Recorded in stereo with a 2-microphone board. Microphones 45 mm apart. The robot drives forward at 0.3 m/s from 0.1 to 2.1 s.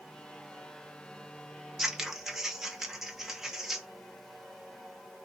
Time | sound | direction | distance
1.8 | scissors | 10° right (ahead or behind) | 0.7 m